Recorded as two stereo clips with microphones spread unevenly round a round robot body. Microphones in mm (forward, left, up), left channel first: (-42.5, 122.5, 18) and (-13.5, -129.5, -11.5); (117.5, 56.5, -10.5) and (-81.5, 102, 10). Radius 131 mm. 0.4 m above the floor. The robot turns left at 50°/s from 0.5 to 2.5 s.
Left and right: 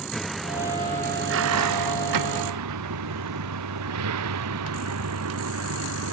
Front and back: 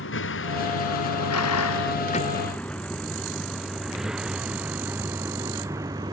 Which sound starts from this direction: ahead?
A vehicle, at 0.0 s.